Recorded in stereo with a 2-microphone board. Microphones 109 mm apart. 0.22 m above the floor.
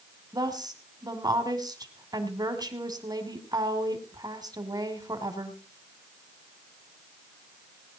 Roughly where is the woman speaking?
Right.